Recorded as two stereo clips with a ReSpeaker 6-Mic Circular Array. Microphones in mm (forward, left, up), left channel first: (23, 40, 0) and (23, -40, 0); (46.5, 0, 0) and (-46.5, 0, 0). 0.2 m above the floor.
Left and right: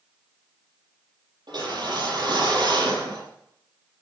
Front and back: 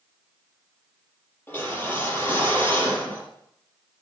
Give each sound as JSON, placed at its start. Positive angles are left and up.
{"t": 1.5, "sound": "a whoosh", "azimuth_deg": -70, "distance_m": 6.5}